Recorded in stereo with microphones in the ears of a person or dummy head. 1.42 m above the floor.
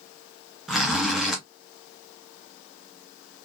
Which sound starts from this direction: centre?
A zipper, at 0.7 s.